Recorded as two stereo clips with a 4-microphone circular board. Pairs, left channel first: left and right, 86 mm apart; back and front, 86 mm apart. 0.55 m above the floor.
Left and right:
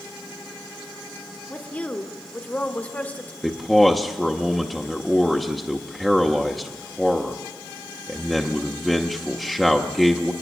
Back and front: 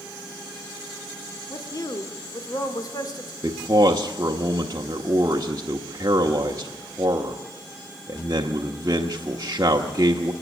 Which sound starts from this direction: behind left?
A woman speaking, at 1.5 s.